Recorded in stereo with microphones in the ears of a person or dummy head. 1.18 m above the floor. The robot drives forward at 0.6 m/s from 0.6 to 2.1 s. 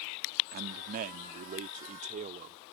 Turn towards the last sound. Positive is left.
turn(degrees=-35)  # may be behind; listen again after turning